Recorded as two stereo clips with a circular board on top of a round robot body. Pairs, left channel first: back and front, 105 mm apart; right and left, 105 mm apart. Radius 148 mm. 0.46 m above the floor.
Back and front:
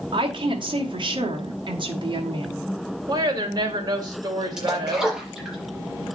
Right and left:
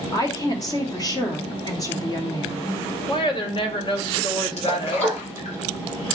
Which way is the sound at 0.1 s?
40° right.